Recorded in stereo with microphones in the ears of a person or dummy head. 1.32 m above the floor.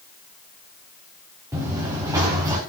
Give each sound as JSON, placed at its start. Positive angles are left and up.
{"t": 1.5, "sound": "running footsteps", "side_deg": -15, "distance_m": 7.5}